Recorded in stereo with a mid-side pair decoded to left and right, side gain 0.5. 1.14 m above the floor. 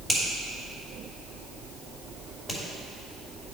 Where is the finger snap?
5° right, 3 m.